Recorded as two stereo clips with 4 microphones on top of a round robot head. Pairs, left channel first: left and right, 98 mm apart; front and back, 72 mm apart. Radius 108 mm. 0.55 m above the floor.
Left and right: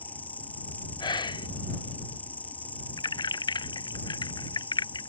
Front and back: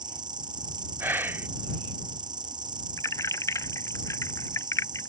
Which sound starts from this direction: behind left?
Whispering, at 1.0 s.